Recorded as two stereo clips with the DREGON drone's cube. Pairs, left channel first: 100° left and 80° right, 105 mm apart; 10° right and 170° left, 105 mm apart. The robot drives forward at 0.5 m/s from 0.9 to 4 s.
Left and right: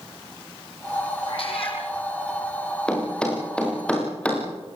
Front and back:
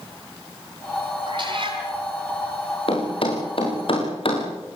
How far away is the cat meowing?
About 6.5 m.